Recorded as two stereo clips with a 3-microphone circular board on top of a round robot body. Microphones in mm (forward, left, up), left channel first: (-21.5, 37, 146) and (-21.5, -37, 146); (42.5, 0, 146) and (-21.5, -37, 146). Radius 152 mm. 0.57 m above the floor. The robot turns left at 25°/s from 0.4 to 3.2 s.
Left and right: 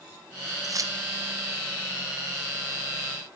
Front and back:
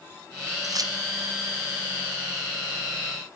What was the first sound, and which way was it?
Keys jangling, 120° right.